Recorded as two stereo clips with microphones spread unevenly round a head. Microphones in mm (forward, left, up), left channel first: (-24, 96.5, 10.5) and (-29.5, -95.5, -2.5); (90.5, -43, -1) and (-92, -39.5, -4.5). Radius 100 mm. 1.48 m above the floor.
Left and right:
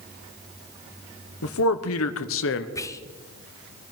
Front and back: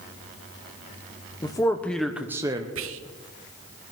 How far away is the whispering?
About 1.0 m.